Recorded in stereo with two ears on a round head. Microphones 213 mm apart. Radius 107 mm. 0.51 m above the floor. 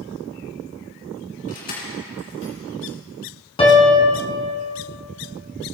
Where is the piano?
25° left (ahead or behind), 1.7 m.